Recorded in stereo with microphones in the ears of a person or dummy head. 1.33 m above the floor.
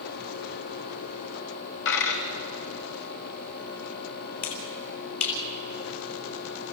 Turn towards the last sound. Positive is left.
turn(degrees=60)  # may be behind; listen again after turning